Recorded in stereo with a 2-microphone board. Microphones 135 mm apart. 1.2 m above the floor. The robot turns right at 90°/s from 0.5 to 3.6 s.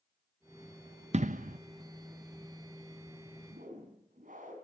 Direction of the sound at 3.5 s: 85° right.